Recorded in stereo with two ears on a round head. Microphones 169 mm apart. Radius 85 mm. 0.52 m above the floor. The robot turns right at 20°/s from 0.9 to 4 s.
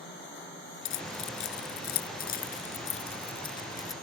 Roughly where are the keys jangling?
Left.